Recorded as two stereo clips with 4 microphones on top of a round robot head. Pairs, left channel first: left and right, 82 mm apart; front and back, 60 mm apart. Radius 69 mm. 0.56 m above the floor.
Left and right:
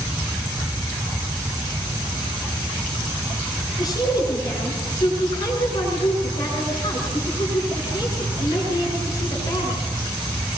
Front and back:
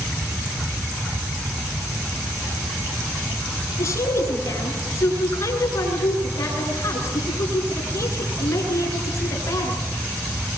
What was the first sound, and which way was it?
A woman speaking, 40° left.